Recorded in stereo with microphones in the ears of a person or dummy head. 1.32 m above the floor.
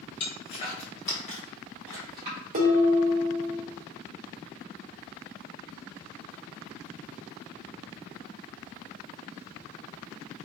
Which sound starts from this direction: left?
Footsteps, at 0.2 s.